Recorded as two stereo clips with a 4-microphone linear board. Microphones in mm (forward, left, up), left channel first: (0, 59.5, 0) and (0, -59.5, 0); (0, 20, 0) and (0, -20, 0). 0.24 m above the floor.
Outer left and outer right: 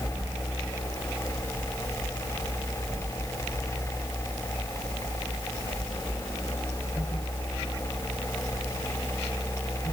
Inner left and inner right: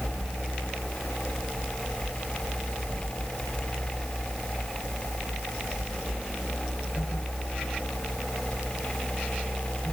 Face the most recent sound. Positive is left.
No sound to turn to.